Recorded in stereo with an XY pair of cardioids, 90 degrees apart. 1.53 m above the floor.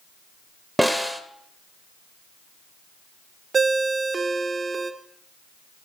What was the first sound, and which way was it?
A snare drum, 5° right.